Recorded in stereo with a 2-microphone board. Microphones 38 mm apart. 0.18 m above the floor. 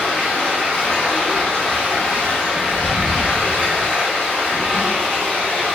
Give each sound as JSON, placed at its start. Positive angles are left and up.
{"t": 0.0, "sound": "running water", "side_deg": 20, "distance_m": 1.3}